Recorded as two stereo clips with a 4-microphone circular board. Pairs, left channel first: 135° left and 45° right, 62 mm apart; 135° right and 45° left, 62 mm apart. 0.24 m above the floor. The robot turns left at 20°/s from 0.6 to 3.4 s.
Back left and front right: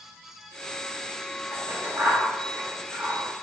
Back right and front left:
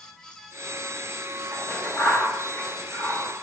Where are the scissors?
65° right, 1.2 m; by 3.2 s 100° right, 1.2 m.